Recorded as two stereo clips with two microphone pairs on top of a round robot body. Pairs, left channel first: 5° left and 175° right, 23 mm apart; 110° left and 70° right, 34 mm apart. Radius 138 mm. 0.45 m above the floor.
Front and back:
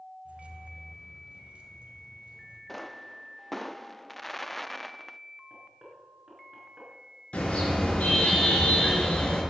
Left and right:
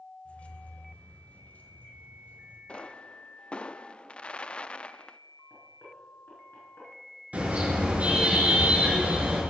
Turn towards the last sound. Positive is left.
turn(degrees=-20)